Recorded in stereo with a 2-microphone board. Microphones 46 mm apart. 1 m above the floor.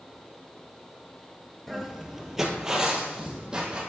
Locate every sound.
1.7 s footsteps: centre (ahead or behind), 1.0 m; by 3.8 s 20° right (ahead or behind), 2 m